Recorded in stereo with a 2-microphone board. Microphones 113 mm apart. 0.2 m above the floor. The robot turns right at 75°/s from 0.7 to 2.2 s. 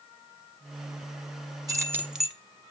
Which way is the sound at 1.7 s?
45° right.